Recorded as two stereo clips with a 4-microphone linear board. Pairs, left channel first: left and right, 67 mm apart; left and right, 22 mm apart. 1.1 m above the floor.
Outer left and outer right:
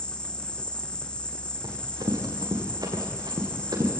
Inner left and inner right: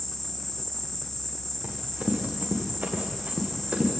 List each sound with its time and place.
0.0 s an insect: 15° left (ahead or behind), 1.2 m
1.6 s running footsteps: 80° right, 7 m; by 3.9 s 70° right (ahead or behind), 6.5 m